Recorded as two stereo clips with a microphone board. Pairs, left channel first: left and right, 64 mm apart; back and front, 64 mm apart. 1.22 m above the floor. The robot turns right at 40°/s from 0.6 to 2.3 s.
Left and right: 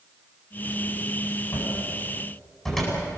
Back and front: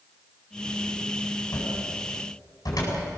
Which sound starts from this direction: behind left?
A cupboard door, at 1.5 s.